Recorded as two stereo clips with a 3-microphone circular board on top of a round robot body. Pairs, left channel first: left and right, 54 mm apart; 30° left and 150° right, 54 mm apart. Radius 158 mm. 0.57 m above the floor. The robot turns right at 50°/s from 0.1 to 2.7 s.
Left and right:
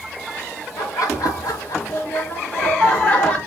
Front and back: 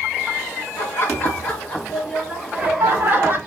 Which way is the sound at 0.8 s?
60° left.